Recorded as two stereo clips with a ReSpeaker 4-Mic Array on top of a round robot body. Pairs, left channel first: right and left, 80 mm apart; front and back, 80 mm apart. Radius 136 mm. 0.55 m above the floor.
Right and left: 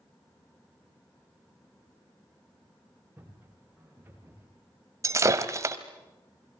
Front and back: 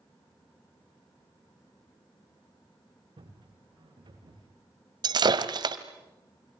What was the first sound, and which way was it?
Footsteps, 160° left.